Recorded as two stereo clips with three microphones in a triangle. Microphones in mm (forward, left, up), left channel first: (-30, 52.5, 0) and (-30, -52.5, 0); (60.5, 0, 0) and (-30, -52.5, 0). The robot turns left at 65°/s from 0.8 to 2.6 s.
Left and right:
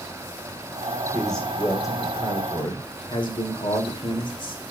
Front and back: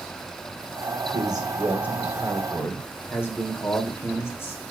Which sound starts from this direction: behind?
A man speaking, at 1.1 s.